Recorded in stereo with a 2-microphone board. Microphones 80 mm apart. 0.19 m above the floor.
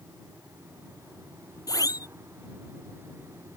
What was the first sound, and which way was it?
A siren, 50° left (ahead or behind).